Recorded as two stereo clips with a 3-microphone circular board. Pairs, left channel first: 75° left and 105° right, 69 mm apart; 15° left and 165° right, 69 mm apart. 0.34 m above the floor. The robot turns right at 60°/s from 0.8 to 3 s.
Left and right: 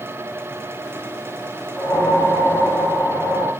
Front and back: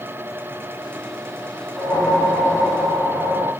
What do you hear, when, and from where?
1.8 s a whoosh: 50° left, 3 m; by 3.5 s 125° left, 3 m